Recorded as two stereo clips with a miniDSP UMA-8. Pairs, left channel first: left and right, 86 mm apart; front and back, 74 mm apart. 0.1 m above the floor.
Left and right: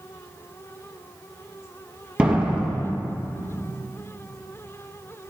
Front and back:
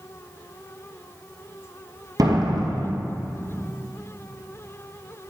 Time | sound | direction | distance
2.2 | a door slam | 165° right | 2 m